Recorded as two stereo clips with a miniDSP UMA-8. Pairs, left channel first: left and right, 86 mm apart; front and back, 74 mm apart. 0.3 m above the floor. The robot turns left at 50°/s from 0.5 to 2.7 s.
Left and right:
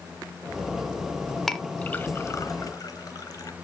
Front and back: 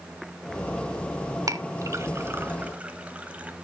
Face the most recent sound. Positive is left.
turn(degrees=115)